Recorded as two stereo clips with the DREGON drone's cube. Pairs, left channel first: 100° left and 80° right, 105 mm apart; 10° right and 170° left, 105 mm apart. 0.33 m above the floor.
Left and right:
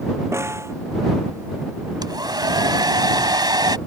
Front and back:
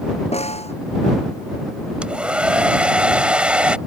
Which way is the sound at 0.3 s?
15° right.